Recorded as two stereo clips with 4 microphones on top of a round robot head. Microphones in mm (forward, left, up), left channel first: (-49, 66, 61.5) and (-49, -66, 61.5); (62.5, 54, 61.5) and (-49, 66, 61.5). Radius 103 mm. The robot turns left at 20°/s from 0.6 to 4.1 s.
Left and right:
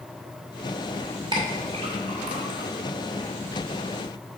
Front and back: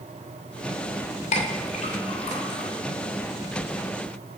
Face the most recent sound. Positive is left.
turn(degrees=-85)